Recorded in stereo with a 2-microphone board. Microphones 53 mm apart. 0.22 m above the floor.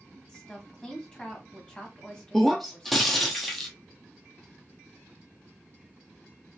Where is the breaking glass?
Centre (ahead or behind), 0.8 m.